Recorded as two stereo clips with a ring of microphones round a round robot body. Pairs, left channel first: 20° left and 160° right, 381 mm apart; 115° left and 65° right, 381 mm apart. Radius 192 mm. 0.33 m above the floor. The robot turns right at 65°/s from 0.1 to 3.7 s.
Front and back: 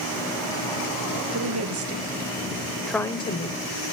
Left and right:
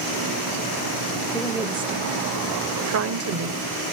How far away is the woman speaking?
About 1.5 m.